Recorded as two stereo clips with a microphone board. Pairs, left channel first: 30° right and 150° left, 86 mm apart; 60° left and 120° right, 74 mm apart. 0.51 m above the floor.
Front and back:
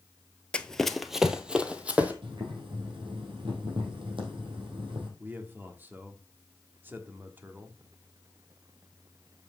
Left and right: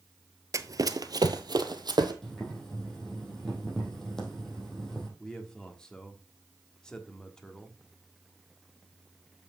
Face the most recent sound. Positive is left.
turn(degrees=130)